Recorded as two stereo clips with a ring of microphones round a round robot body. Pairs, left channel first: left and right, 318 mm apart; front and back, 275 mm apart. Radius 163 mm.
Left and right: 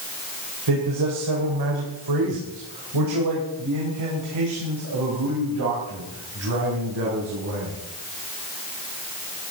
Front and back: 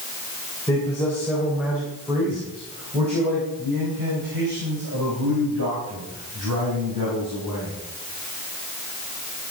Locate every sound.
0.7 s a man speaking: 80° right, 3 m; by 7.8 s 140° right, 6 m